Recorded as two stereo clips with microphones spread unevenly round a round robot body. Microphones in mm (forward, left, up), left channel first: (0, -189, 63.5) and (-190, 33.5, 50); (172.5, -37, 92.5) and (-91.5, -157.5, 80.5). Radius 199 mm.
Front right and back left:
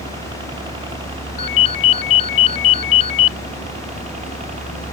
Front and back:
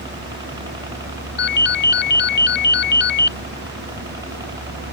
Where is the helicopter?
165° left; by 5.0 s 145° left.